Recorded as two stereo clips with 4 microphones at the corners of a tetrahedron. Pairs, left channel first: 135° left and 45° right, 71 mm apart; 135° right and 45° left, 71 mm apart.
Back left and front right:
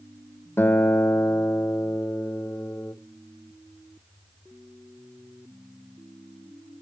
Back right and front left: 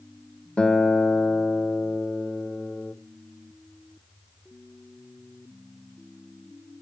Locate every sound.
0.6 s a guitar: 160° left, 0.5 m